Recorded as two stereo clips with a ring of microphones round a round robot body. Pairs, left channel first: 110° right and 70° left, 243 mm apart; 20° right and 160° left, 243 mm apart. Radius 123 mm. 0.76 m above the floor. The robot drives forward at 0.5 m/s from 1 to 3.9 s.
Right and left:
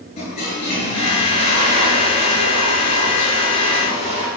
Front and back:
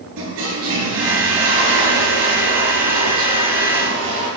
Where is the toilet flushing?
175° right, 6 m.